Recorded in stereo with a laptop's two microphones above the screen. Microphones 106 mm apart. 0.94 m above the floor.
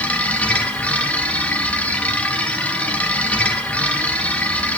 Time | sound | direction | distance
0.0 | a machine running | 15° left (ahead or behind) | 1.5 m